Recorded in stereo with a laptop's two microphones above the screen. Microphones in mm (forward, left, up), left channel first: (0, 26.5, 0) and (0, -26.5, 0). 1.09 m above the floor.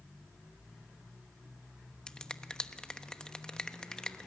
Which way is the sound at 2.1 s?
15° left (ahead or behind).